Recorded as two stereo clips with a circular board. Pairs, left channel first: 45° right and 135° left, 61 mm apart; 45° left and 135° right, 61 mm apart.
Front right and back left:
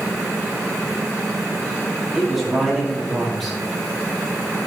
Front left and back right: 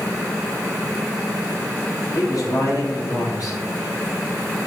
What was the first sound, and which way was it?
A man speaking, 45° left.